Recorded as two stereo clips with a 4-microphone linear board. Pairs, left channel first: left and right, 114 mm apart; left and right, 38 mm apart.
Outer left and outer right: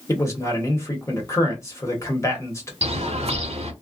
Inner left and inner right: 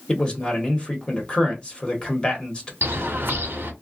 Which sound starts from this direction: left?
A man speaking, at 0.1 s.